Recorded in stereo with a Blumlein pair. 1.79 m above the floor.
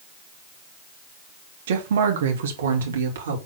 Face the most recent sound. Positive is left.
turn(degrees=-65)